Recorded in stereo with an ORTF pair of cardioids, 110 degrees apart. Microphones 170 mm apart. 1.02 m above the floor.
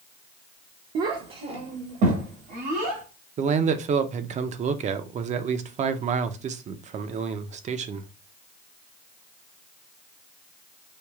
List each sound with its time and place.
0.9 s a child speaking: 60° right, 0.7 m; by 3.0 s 75° right, 2 m
3.4 s a man speaking: 45° right, 0.6 m